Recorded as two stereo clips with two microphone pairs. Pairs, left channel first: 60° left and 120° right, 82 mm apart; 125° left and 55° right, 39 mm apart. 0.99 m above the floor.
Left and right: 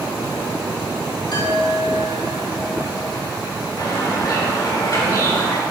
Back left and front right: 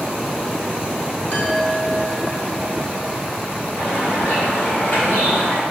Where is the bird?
95° left, 3 m.